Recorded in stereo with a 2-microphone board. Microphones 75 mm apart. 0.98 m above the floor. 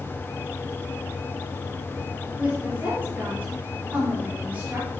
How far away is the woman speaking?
About 3 m.